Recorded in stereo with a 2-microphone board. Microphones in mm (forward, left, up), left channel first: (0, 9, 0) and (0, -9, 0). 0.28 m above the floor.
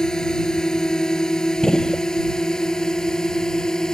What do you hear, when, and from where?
0.0 s a drone: 40° left (ahead or behind); by 4.0 s 35° left (ahead or behind)
1.6 s a gunshot: 35° left (ahead or behind)